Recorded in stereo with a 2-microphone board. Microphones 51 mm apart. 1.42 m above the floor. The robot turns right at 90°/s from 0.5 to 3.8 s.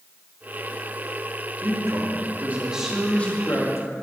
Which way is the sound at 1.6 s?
120° right.